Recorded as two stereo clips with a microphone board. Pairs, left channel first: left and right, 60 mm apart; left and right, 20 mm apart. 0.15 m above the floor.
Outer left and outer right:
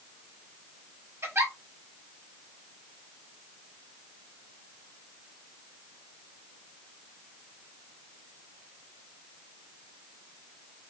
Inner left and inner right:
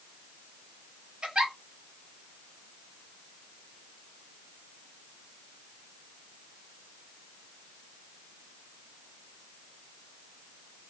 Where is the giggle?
45° right (ahead or behind), 0.9 m.